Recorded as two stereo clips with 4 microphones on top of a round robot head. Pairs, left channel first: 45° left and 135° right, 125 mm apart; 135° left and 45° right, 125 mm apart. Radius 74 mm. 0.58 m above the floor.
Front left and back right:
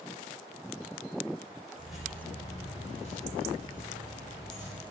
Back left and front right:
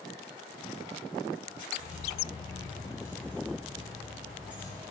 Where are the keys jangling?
145° left, 0.6 m; by 4.8 s 35° left, 1.4 m.